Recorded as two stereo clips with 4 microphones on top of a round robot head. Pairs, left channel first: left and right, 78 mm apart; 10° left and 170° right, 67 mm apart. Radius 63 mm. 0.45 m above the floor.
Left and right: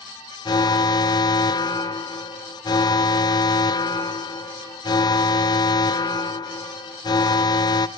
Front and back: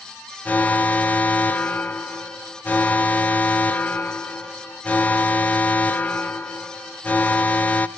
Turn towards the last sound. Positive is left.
turn(degrees=75)